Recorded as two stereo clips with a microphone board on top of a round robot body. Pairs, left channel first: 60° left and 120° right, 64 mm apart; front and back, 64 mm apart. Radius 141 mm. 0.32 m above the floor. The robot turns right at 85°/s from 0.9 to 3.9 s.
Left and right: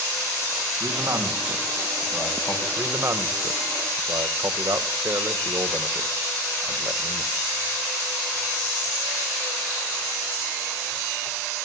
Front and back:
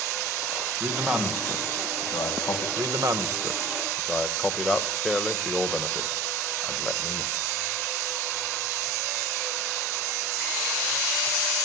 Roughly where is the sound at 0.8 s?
Behind right.